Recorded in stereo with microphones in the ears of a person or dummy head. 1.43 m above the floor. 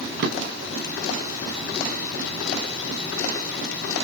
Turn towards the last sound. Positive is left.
turn(degrees=-55)  # may be behind; listen again after turning